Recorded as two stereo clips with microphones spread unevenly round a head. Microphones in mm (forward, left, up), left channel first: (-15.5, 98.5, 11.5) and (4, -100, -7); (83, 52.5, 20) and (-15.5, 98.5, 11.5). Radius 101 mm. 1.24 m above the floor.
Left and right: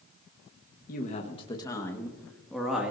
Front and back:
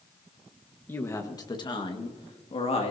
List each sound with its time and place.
0.9 s a woman speaking: 45° left, 1.3 m; by 2.9 s straight ahead, 2.5 m